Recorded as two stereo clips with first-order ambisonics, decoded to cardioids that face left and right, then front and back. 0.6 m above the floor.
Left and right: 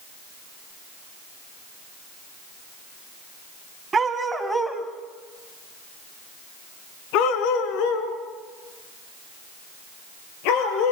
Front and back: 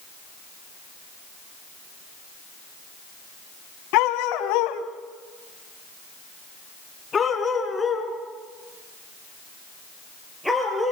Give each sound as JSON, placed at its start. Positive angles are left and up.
{"t": 3.9, "sound": "a dog barking", "azimuth_deg": -15, "distance_m": 1.8}